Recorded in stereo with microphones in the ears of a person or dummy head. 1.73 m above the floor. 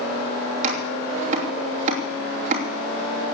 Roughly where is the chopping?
Right.